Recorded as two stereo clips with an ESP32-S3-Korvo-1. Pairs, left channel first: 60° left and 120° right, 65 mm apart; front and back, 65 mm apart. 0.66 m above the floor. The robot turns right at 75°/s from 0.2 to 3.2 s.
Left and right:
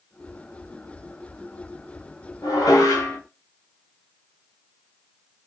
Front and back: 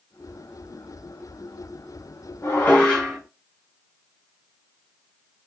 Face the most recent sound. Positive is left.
turn(degrees=100)